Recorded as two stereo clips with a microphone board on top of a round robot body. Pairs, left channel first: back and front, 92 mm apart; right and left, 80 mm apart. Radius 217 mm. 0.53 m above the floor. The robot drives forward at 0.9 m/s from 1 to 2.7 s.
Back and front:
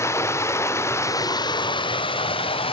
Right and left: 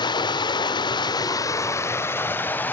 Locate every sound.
0.0 s running water: 120° right, 0.9 m; by 2.7 s 160° right, 2 m